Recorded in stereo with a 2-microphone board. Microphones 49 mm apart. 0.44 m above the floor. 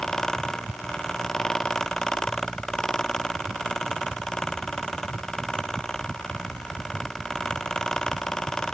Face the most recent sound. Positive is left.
No sound to turn to.